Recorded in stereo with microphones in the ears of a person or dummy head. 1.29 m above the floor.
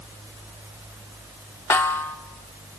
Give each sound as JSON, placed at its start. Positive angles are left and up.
{"t": 1.7, "sound": "a snare drum", "side_deg": 15, "distance_m": 0.9}